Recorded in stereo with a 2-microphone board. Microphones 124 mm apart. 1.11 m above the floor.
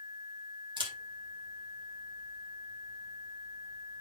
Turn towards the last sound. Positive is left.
turn(degrees=-40)  # may be behind; listen again after turning